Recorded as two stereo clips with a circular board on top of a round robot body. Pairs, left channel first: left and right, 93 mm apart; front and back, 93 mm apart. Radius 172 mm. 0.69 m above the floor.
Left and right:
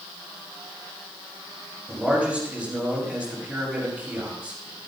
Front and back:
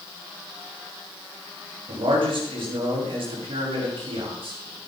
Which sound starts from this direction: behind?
A man speaking, at 1.9 s.